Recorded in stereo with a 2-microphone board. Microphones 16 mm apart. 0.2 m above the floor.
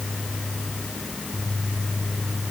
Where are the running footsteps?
No running footsteps in this recording.